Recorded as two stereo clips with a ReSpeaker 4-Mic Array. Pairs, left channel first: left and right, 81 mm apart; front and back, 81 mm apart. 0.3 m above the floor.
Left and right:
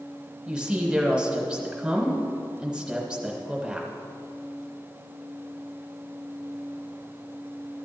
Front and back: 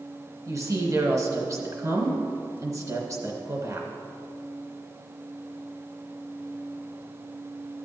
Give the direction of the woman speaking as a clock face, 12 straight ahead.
5 o'clock.